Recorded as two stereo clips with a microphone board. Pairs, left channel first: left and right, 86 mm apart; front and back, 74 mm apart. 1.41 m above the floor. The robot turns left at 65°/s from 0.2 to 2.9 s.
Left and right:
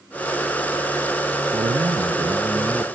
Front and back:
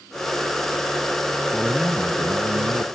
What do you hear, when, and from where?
1.5 s a man speaking: 90° right, 0.7 m; by 2.8 s 175° right, 0.7 m